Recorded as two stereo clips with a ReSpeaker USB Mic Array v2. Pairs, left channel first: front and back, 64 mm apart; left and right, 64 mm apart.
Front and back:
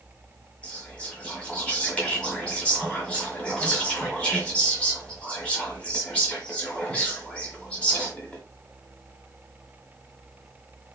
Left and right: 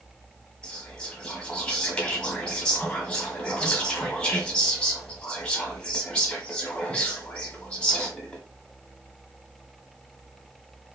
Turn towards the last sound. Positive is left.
turn(degrees=40)